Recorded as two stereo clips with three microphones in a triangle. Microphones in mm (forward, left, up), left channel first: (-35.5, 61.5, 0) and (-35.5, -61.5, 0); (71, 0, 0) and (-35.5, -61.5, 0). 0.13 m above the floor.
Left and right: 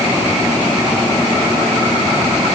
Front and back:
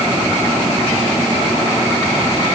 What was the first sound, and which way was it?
Only background noise.